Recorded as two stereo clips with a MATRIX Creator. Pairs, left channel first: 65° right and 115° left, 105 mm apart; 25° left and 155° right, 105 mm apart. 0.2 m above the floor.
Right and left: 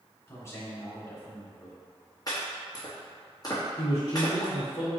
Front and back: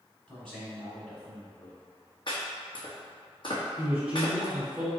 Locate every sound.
0.3 s a man speaking: 50° right, 1.1 m
2.3 s chopping: 15° right, 1.6 m
3.8 s a man speaking: 85° right, 1.9 m